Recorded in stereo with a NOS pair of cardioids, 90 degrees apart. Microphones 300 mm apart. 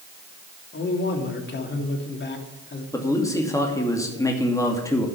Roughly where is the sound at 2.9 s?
Ahead.